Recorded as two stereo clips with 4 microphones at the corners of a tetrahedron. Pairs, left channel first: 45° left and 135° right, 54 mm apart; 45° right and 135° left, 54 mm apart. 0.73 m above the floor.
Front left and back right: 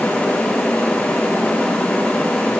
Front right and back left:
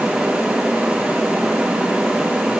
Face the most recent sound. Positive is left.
No sound to turn to.